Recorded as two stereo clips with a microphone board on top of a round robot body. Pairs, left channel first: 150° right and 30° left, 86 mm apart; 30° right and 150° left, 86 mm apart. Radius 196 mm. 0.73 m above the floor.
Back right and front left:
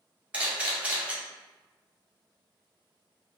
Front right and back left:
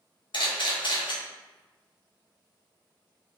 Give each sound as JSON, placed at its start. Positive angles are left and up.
{"t": 0.3, "sound": "a camera shutter", "azimuth_deg": -45, "distance_m": 1.3}